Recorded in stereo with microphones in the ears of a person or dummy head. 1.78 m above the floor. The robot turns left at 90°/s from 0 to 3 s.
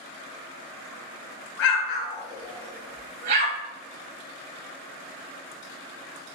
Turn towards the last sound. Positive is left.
turn(degrees=-40)  # may be behind; listen again after turning